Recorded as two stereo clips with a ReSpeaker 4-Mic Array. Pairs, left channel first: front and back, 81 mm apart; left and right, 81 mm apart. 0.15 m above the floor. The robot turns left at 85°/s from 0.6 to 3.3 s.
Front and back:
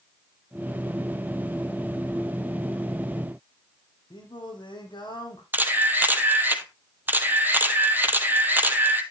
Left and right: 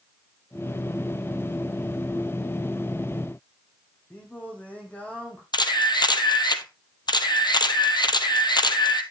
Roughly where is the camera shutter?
Behind left.